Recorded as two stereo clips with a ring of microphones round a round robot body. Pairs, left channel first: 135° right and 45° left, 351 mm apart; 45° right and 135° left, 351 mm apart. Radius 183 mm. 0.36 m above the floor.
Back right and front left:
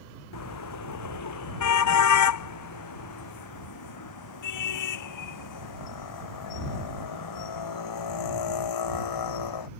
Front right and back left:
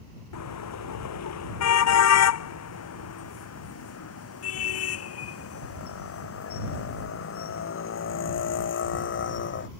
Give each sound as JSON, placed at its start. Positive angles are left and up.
{"t": 0.3, "sound": "a car horn", "azimuth_deg": -90}